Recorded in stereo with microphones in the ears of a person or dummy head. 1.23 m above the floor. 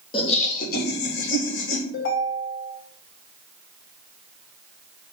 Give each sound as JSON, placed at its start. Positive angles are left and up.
{"t": 0.1, "sound": "laughter", "side_deg": 25, "distance_m": 0.7}
{"t": 1.9, "sound": "a ringtone", "side_deg": 60, "distance_m": 1.6}